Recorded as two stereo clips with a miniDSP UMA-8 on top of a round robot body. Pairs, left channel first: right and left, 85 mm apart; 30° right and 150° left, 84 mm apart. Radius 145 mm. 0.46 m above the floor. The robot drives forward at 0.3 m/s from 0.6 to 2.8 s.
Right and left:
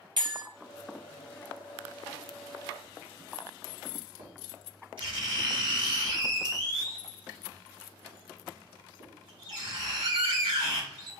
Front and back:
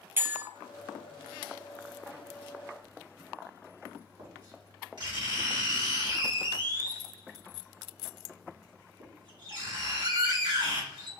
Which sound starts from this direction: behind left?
Writing, at 2.8 s.